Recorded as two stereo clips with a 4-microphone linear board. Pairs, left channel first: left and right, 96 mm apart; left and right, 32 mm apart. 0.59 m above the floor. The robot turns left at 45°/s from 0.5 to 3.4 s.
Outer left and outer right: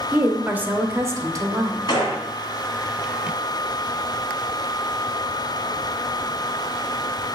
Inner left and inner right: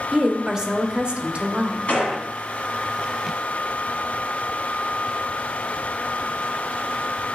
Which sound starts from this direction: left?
A gunshot, at 1.9 s.